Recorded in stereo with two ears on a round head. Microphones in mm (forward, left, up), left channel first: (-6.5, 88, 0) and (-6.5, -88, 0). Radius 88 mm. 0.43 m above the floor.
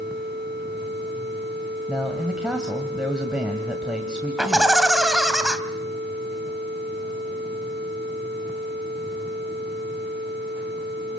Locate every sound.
1.9 s a man speaking: 5° right (ahead or behind), 1.9 m
4.4 s laughter: 5° right (ahead or behind), 3 m